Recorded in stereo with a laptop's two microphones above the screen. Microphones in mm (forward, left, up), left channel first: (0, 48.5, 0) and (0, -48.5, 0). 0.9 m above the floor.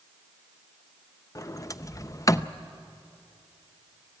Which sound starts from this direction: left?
A sliding door, at 1.4 s.